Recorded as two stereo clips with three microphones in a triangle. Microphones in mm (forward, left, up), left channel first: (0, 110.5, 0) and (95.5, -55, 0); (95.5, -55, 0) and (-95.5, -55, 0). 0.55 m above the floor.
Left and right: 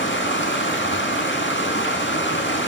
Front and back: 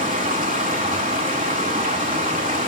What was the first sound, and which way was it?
Running water, 130° left.